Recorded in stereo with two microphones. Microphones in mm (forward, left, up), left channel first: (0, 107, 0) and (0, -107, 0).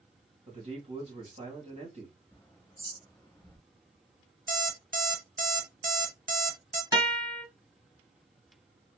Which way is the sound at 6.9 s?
15° right (ahead or behind).